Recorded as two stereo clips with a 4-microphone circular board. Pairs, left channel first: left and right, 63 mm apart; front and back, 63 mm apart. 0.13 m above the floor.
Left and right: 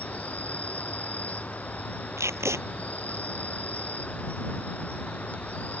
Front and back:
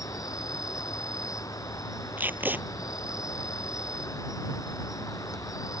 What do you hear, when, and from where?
0.0 s an insect: 25° left
2.2 s tape being pulled: 125° right